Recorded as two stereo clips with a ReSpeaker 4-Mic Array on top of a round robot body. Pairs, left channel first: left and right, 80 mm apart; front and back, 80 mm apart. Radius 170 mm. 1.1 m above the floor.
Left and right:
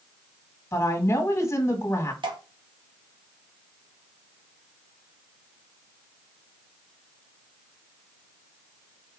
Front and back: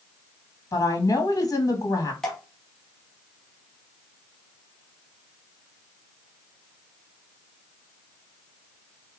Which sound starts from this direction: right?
Dripping, at 2.2 s.